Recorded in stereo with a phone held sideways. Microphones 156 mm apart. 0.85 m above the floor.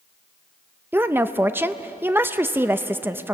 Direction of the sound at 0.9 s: 15° right (ahead or behind).